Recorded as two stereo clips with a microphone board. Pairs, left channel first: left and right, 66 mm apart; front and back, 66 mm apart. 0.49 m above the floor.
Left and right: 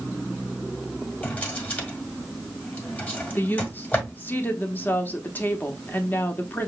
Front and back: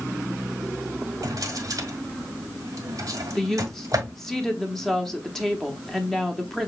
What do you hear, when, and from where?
1.2 s a drawer: 155° left, 1.4 m
3.4 s a woman speaking: 75° left, 0.9 m